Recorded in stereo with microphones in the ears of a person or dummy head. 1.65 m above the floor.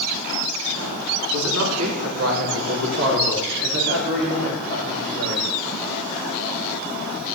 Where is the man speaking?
80° right, 3 m; by 5.5 s 45° right (ahead or behind), 4.5 m.